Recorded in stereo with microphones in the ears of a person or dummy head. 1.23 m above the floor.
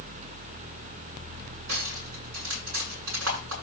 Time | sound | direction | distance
1.7 | cutlery clinking | 80° right | 9 m